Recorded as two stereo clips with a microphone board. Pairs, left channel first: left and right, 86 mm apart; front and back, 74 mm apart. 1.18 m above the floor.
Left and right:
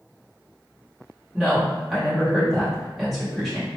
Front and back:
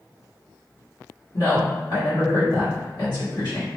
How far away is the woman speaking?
About 1.5 m.